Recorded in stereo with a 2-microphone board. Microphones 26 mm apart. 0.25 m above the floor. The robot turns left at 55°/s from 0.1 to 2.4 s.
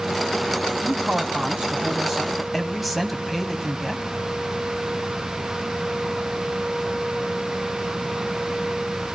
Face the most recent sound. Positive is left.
turn(degrees=-175)